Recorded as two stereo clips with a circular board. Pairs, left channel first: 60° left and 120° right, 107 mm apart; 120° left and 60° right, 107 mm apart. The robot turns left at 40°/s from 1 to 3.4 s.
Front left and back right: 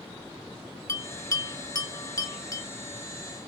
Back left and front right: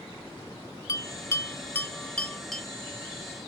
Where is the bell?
95° left, 0.8 m; by 2.6 s 30° left, 0.8 m.